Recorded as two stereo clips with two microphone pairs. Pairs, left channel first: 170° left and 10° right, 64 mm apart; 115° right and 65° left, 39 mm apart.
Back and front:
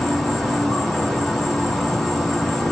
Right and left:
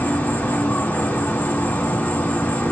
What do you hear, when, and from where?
0.0 s an insect: 100° right, 1.5 m